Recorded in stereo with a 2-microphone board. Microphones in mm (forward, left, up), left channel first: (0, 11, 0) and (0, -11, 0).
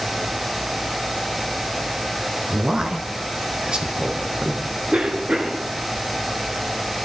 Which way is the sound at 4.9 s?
45° right (ahead or behind).